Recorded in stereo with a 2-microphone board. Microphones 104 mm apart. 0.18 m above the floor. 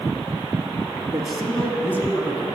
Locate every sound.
1.1 s a man speaking: 5° right (ahead or behind), 1.6 m; by 2.5 s 35° left (ahead or behind), 1.6 m